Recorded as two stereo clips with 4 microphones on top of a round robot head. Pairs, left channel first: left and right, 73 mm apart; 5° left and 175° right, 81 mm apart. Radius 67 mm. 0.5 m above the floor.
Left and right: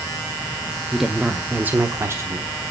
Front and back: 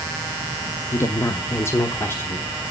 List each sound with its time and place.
0.9 s a woman speaking: straight ahead, 0.8 m; by 2.6 s 55° right, 1.2 m